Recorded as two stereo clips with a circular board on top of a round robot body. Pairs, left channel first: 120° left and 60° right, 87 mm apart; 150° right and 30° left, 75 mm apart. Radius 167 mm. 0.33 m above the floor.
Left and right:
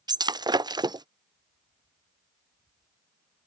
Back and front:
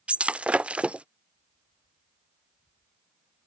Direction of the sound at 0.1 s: 40° right.